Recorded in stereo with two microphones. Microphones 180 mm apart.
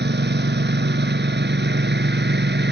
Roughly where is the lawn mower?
Right.